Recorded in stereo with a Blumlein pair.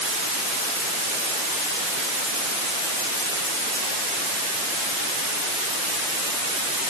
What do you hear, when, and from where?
Only background noise.